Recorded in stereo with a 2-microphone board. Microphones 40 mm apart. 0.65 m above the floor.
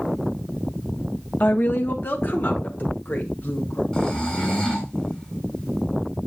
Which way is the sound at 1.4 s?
45° left (ahead or behind).